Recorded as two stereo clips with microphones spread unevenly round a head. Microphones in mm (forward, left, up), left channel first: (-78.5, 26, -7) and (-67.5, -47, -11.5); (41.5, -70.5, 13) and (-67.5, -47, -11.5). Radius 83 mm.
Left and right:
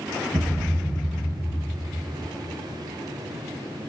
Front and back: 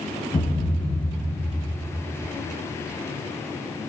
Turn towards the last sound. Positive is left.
turn(degrees=-45)